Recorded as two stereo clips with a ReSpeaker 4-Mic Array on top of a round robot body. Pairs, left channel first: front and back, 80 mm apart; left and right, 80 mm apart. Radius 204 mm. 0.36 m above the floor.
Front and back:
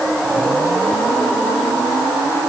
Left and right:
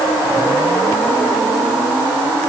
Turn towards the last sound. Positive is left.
No sound to turn to.